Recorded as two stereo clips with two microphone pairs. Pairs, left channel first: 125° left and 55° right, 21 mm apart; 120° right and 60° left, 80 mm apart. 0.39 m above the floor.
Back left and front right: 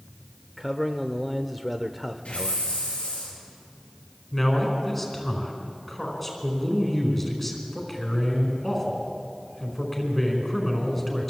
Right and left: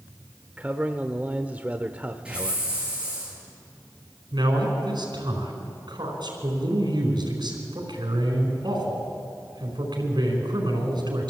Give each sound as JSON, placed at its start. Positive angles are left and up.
{"t": 0.6, "sound": "a man speaking", "azimuth_deg": 25, "distance_m": 0.8}
{"t": 2.2, "sound": "a hiss", "azimuth_deg": 140, "distance_m": 7.5}
{"t": 4.3, "sound": "a man speaking", "azimuth_deg": 45, "distance_m": 4.5}